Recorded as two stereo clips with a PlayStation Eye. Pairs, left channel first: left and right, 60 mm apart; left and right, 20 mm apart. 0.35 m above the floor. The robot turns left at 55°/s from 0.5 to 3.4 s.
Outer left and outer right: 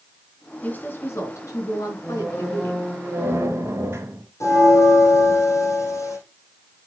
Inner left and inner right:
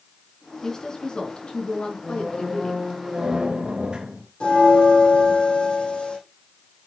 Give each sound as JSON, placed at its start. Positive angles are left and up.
{"t": 0.6, "sound": "a woman speaking", "azimuth_deg": 155, "distance_m": 4.0}
{"t": 2.0, "sound": "a squeak", "azimuth_deg": 30, "distance_m": 3.5}
{"t": 4.4, "sound": "a bell", "side_deg": 60, "distance_m": 5.0}